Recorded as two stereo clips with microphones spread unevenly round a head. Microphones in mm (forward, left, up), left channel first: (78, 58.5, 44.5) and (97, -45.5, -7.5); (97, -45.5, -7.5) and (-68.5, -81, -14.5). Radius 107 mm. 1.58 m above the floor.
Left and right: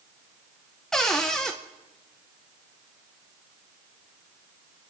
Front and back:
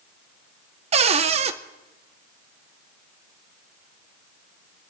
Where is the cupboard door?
150° left, 0.7 m.